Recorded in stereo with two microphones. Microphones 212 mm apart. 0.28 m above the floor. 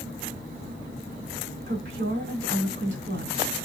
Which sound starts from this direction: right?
A woman speaking, at 1.7 s.